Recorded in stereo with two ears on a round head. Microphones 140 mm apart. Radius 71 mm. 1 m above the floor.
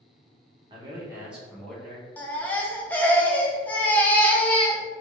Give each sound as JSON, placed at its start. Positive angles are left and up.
{"t": 0.7, "sound": "a man speaking", "side_deg": -30, "distance_m": 1.1}
{"t": 2.2, "sound": "a baby crying", "side_deg": 10, "distance_m": 0.5}